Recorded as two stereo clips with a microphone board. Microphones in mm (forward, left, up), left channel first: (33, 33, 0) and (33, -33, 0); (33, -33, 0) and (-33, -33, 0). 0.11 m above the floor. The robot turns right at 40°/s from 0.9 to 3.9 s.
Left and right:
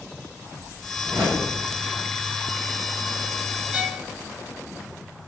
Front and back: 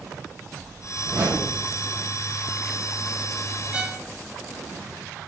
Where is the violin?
135° right, 0.6 m; by 4.1 s 130° right, 0.6 m.